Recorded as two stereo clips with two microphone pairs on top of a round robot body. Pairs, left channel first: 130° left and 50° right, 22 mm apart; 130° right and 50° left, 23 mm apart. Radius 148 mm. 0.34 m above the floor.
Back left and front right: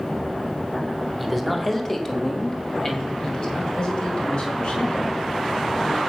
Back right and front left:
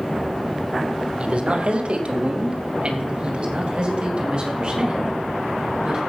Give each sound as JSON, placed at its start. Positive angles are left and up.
{"t": 1.2, "sound": "a man speaking", "azimuth_deg": 40, "distance_m": 2.0}